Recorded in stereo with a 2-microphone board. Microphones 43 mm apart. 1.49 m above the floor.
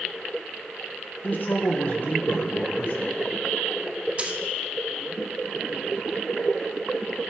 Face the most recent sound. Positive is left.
turn(degrees=-30)  # may be behind; listen again after turning